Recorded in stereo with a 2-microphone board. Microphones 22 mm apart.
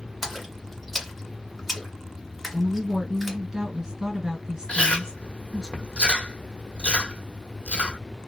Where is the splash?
5° left (ahead or behind), 1.5 m.